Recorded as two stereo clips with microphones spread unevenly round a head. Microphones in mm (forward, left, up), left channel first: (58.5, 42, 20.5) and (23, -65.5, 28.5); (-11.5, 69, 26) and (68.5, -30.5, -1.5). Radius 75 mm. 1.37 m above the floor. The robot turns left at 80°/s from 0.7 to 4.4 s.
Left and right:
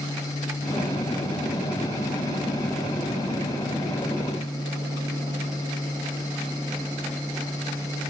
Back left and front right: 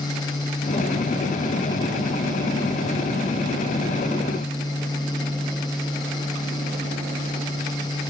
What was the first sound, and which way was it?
Only background noise.